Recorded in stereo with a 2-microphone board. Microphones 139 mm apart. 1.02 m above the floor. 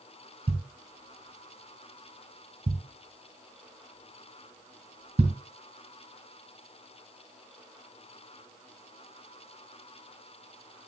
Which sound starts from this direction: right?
A thud, at 0.5 s.